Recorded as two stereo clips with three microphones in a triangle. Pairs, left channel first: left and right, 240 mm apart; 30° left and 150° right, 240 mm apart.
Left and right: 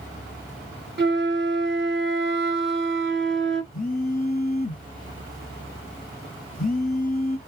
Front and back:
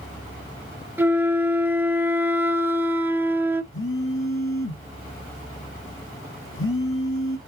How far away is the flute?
About 0.6 m.